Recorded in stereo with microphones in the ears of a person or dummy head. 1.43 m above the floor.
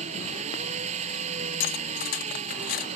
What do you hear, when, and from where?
0.0 s an engine running: 40° right (ahead or behind)
1.6 s cutlery clinking: 45° left (ahead or behind)